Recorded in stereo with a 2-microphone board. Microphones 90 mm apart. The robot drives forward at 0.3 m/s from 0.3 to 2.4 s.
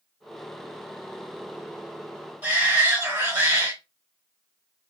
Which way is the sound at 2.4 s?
15° right (ahead or behind).